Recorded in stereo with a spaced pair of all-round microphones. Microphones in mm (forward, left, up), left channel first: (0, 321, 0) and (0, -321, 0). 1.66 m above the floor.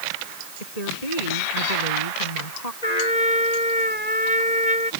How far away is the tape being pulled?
No tape being pulled in this recording.